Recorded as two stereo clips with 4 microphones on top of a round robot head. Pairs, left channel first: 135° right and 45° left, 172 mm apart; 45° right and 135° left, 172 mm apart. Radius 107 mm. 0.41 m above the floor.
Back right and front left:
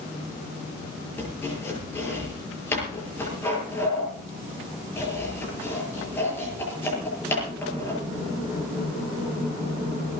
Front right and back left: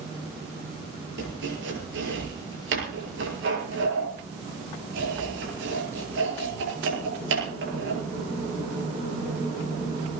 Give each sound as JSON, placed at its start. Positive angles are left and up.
{"t": 1.2, "sound": "chopping", "azimuth_deg": 150, "distance_m": 7.5}